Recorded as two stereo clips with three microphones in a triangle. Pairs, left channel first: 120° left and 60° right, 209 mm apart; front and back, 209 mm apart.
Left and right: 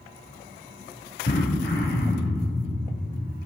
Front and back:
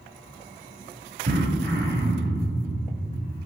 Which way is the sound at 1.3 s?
150° left.